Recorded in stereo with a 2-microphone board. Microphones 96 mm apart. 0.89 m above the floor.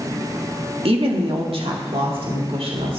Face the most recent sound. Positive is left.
turn(degrees=-65)  # may be behind; listen again after turning